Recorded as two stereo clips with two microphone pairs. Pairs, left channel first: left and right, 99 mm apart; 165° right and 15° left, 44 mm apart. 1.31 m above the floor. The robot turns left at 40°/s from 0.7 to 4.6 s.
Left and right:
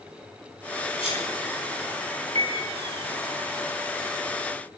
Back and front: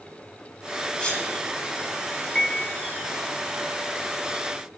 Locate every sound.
1.0 s a sneeze: 120° left, 9.5 m; by 1.3 s 105° left, 9.5 m
2.4 s a piano: 95° right, 3 m; by 2.8 s 110° right, 3 m